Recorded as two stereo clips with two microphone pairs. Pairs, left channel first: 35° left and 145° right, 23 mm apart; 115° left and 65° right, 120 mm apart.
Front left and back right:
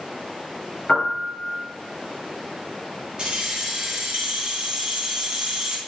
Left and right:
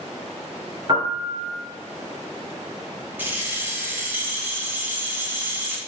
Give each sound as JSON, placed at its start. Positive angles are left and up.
{"t": 0.9, "sound": "a piano", "azimuth_deg": -20, "distance_m": 1.6}
{"t": 3.2, "sound": "keys jangling", "azimuth_deg": -130, "distance_m": 1.3}